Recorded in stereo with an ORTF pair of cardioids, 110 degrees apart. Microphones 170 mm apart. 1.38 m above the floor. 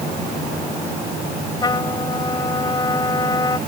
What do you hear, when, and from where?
1.6 s a trumpet: 25° left